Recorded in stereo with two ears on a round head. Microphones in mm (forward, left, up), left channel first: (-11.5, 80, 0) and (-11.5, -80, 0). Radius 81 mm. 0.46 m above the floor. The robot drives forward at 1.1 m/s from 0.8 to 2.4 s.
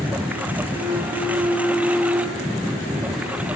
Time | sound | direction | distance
0.0 | a lawn mower | 10° right (ahead or behind) | ?